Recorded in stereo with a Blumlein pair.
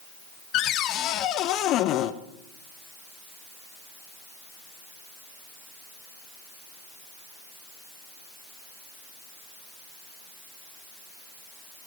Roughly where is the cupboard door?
Ahead left.